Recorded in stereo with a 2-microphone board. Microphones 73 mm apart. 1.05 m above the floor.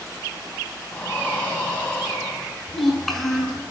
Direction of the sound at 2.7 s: 5° left (ahead or behind).